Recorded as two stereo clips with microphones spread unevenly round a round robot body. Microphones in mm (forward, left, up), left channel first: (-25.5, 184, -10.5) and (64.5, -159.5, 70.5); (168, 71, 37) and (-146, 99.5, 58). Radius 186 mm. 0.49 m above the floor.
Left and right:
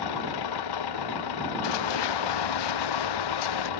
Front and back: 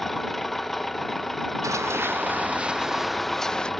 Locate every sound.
0.0 s an engine running: 85° left
1.6 s running footsteps: 95° left; by 3.7 s 80° left